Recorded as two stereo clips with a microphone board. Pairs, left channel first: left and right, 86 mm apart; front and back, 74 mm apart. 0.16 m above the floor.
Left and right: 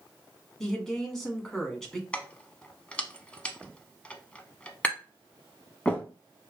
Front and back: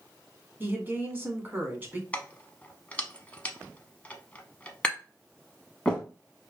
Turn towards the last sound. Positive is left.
turn(degrees=50)